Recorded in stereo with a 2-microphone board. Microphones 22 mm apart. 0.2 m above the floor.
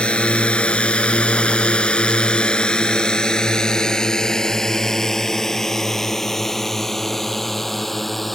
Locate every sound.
0.0 s a drone: 60° left (ahead or behind); by 8.4 s 10° left (ahead or behind)